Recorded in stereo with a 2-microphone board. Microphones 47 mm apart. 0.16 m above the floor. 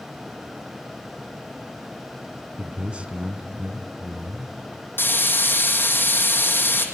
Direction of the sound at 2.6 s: 25° right (ahead or behind).